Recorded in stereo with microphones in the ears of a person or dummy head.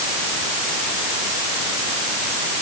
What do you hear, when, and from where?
Only background noise.